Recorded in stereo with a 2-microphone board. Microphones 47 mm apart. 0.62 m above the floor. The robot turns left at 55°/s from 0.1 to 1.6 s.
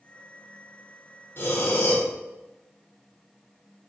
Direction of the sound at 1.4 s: 55° left (ahead or behind).